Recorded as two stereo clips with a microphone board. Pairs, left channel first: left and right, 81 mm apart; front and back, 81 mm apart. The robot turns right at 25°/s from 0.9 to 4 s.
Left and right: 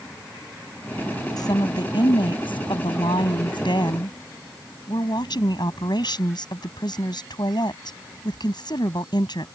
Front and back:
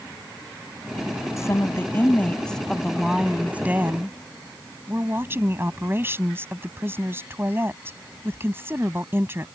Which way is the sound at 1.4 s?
55° left.